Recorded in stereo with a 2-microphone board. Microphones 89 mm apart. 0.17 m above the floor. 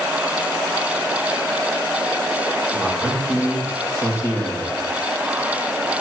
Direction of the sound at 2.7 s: 35° left (ahead or behind).